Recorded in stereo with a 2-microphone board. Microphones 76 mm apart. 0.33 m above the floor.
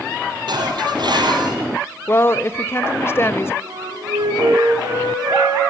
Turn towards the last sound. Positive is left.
turn(degrees=-70)  # may be behind; listen again after turning